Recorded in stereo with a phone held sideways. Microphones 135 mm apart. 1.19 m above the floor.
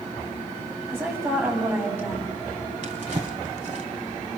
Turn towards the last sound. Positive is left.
turn(degrees=-55)  # may be behind; listen again after turning